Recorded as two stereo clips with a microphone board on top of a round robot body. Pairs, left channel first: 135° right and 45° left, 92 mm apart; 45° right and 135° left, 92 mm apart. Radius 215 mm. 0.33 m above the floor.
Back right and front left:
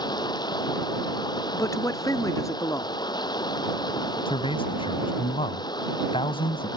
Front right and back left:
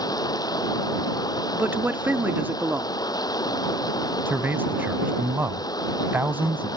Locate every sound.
0.0 s running water: 90° right
1.5 s a man speaking: 165° right
4.3 s a man speaking: 155° right